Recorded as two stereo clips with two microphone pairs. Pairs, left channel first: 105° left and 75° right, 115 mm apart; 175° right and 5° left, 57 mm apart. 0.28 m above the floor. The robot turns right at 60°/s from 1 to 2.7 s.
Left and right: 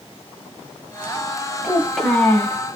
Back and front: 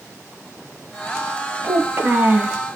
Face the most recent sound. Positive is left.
turn(degrees=65)